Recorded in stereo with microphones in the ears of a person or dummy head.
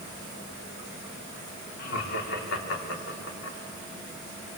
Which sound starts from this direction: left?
Laughter, at 1.8 s.